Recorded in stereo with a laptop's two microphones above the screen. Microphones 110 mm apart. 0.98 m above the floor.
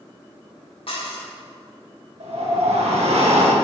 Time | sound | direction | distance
0.9 | dishes clattering | 60° left (ahead or behind) | 1.6 m
2.2 | a whoosh | 80° right | 1.1 m